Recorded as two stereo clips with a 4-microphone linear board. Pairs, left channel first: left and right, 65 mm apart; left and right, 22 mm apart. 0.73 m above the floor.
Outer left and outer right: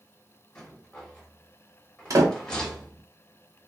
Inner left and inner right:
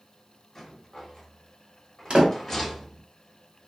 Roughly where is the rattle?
Centre.